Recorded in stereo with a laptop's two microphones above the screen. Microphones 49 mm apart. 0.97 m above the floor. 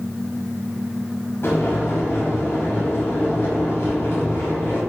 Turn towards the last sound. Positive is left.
turn(degrees=60)  # may be behind; listen again after turning